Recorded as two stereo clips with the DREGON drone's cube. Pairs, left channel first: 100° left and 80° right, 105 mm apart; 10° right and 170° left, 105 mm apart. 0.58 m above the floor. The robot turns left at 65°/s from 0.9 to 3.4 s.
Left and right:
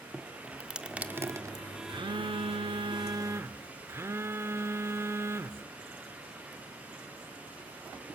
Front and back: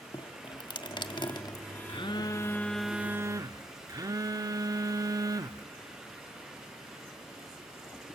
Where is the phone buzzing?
40° right, 0.8 m; by 5.7 s 140° right, 0.8 m.